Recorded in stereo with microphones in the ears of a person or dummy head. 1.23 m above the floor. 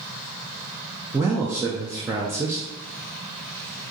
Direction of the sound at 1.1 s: 15° right (ahead or behind).